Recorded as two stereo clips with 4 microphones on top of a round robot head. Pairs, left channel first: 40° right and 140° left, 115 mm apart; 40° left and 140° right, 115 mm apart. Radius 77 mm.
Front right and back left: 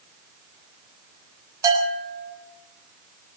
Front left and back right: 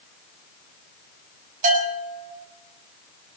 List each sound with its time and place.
1.6 s a bell: 155° right, 9 m